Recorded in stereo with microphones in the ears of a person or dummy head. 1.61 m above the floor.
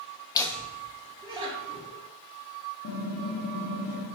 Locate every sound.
0.3 s laughter: 20° left (ahead or behind), 0.5 m; by 2.0 s 35° right (ahead or behind), 1.4 m
2.8 s typing on a keyboard: 60° left (ahead or behind), 0.9 m